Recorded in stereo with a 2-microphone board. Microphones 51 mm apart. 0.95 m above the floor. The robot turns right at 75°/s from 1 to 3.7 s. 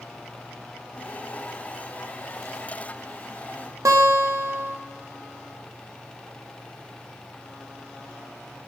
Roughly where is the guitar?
Right.